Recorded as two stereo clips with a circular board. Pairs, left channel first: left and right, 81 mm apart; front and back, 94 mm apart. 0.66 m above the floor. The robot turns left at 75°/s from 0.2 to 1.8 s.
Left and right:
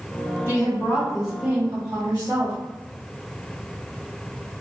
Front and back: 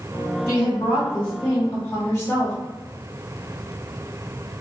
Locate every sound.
0.5 s a woman speaking: 60° left, 1.6 m; by 2.5 s 40° right, 1.6 m